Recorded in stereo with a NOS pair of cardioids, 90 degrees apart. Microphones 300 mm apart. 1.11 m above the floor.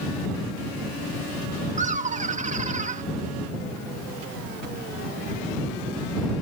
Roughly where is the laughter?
Ahead right.